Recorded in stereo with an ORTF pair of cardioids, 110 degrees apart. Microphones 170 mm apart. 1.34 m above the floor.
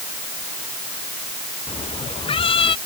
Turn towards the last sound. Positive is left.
turn(degrees=30)